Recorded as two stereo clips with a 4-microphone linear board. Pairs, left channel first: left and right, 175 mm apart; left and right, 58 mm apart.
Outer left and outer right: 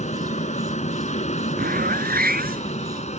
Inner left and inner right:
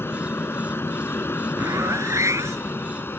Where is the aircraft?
40° left (ahead or behind).